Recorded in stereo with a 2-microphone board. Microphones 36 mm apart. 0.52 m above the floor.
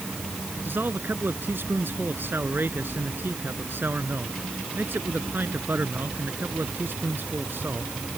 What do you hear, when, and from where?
0.7 s a man speaking: 65° right (ahead or behind)